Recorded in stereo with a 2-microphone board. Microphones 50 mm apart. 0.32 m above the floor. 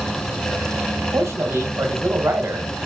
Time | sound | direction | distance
1.1 | a man speaking | 55° right (ahead or behind) | 1.7 m